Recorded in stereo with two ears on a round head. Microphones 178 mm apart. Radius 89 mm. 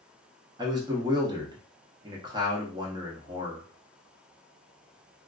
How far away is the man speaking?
About 0.6 m.